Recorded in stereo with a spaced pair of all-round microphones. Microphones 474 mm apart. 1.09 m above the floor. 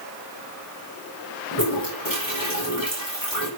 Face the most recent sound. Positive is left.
turn(degrees=45)  # may be behind; listen again after turning